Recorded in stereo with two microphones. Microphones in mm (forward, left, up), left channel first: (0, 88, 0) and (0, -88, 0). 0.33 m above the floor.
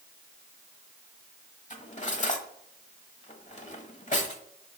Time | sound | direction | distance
1.7 | cutlery clinking | 45° left (ahead or behind) | 1.0 m